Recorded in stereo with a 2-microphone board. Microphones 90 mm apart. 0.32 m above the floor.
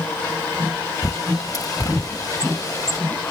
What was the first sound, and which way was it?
A bird, 40° left (ahead or behind).